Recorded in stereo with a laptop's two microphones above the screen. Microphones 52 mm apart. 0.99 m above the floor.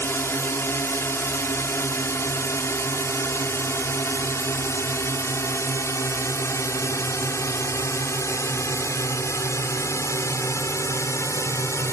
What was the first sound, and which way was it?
A drone, 50° left (ahead or behind).